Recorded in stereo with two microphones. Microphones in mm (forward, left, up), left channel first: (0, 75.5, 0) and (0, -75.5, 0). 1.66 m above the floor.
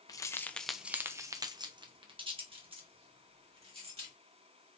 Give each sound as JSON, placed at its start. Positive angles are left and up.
{"t": 0.1, "sound": "keys jangling", "side_deg": 25, "distance_m": 0.6}